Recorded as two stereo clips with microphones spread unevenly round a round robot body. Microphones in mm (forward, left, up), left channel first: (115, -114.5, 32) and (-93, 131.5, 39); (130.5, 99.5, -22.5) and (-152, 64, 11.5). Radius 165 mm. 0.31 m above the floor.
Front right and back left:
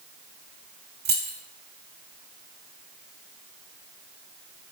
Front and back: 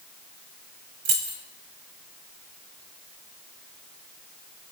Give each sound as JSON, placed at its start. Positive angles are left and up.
{"t": 1.1, "sound": "keys jangling", "azimuth_deg": -175, "distance_m": 1.3}